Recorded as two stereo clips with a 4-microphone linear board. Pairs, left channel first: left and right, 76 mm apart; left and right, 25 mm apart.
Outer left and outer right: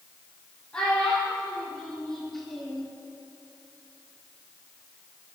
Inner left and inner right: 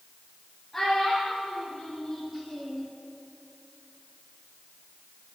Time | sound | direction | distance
0.7 | a child speaking | 10° left (ahead or behind) | 4.5 m